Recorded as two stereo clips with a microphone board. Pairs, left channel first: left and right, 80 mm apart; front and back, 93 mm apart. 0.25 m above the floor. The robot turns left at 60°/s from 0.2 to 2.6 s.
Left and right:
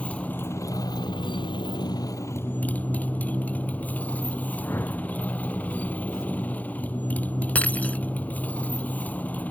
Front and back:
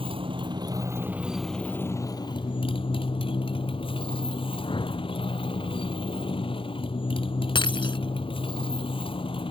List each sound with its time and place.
0.0 s a motorcycle: 165° left; by 9.5 s 20° left
4.6 s a whoosh: 30° left
7.5 s breaking glass: 20° left